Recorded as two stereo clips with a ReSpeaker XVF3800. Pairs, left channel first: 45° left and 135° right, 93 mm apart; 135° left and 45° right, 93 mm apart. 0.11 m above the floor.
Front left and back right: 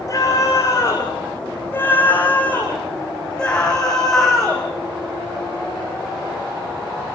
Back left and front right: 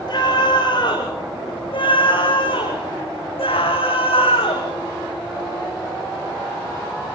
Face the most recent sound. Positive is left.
turn(degrees=135)